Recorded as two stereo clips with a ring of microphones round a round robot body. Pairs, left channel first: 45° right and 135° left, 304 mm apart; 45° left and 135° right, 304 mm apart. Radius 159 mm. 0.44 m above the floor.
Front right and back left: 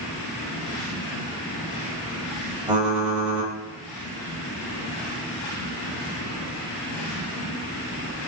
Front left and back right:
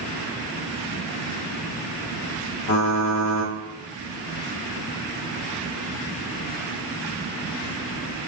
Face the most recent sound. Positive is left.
turn(degrees=50)